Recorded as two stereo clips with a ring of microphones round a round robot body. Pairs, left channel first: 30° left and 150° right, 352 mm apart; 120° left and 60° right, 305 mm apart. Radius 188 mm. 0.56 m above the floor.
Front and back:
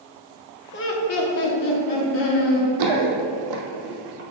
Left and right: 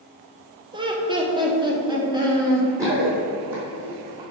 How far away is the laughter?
About 1.0 m.